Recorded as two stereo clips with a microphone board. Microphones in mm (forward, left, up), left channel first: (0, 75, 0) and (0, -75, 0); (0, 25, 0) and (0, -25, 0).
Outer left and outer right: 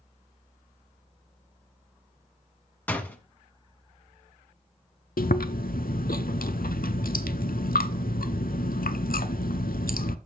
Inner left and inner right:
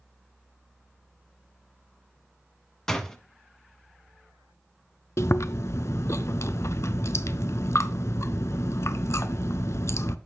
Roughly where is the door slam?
Centre.